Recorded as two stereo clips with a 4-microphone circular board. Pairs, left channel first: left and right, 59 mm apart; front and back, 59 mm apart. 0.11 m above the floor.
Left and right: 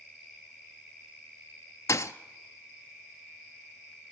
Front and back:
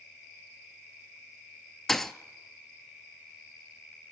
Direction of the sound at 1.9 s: 85° left.